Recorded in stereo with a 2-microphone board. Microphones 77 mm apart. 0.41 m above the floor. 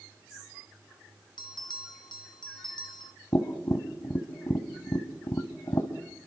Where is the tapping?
45° left (ahead or behind), 1.8 m.